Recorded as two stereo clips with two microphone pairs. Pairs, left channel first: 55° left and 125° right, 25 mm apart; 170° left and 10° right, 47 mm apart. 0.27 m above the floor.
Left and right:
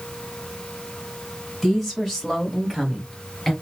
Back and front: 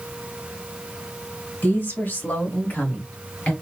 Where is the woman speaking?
150° left, 2 m; by 3.5 s 135° left, 1.5 m.